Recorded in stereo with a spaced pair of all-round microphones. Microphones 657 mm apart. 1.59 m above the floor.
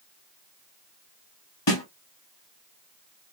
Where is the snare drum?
40° left (ahead or behind), 1.5 m.